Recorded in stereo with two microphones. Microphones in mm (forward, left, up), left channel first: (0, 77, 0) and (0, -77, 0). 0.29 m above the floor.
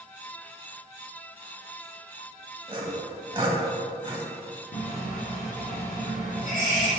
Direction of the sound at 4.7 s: 65° left (ahead or behind).